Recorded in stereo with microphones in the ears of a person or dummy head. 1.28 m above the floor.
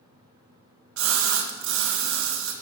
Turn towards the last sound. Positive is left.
turn(degrees=-75)  # may be behind; listen again after turning